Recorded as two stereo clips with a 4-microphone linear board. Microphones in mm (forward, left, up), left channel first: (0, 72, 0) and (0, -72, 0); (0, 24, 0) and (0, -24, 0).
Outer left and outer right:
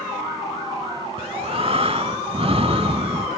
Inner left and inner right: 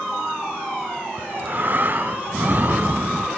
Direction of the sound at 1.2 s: 40° right (ahead or behind).